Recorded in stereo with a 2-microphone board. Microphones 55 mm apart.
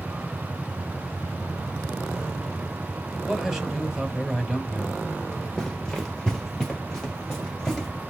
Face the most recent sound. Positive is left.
turn(degrees=10)  # may be behind; listen again after turning